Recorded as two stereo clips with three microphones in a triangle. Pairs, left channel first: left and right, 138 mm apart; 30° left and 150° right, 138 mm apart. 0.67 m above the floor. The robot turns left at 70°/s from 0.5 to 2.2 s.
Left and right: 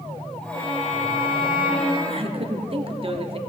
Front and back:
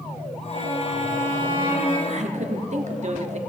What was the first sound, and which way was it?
A violin, 155° left.